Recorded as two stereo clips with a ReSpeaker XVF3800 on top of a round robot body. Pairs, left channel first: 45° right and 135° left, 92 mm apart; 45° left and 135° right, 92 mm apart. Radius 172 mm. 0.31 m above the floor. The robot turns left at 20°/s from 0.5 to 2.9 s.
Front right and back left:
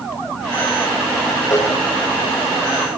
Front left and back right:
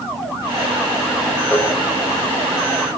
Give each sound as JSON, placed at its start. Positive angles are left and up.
{"t": 1.5, "sound": "a cowbell", "azimuth_deg": -10, "distance_m": 1.7}